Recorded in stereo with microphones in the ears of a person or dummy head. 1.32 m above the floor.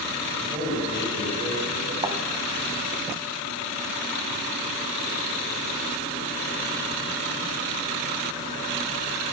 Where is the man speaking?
30° right (ahead or behind), 8 m.